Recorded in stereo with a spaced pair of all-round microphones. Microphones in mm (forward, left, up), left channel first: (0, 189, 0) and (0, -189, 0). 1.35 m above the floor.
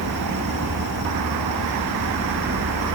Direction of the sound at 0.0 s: 75° right (ahead or behind).